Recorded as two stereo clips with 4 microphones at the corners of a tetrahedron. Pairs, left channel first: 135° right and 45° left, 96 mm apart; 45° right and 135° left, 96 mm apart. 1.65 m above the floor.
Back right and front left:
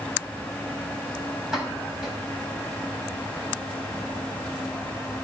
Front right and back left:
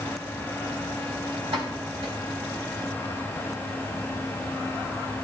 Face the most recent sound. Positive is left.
turn(degrees=130)